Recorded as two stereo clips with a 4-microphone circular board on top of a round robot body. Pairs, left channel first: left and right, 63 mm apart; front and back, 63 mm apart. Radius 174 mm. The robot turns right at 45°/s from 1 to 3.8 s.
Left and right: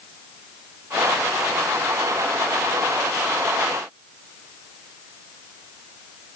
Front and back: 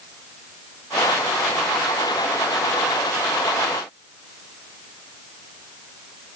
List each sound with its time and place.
Only background noise.